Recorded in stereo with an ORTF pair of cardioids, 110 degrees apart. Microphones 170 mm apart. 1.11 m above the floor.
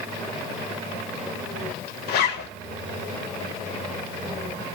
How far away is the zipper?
About 0.6 m.